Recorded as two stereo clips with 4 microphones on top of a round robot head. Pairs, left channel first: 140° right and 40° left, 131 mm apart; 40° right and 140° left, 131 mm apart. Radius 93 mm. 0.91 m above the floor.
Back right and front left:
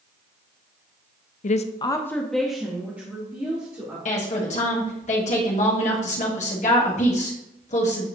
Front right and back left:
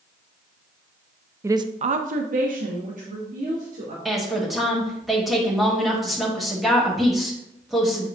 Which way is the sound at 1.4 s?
150° right.